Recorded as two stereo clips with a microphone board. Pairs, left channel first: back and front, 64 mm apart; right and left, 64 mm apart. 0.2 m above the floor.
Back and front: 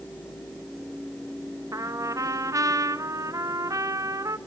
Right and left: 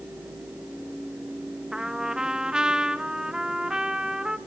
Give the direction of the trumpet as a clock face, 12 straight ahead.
12 o'clock.